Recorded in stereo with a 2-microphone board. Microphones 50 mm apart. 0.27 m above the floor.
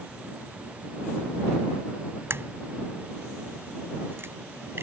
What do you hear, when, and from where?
2.3 s a crack: 50° right (ahead or behind)